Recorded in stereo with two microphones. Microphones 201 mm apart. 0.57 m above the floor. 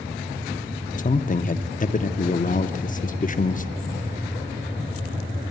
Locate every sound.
1.0 s a man speaking: 40° left (ahead or behind), 0.7 m